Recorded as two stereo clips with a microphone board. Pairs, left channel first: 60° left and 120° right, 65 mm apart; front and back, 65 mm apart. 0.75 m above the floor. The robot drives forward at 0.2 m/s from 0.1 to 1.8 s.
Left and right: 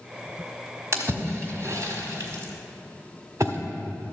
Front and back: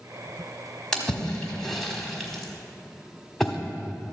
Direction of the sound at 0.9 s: 80° right.